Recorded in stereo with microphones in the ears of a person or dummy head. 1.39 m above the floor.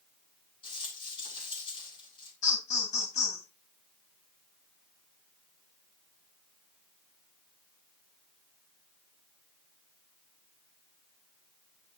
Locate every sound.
0.6 s a rattle: 30° left (ahead or behind), 8.5 m
2.4 s laughter: 40° left (ahead or behind), 9 m